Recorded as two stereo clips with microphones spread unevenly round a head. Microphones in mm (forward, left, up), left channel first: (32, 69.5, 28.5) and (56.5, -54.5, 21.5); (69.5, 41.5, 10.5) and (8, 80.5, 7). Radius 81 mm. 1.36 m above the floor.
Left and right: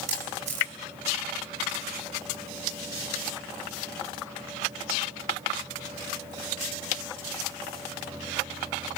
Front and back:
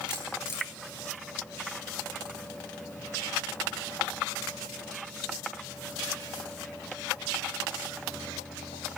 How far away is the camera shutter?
About 5 m.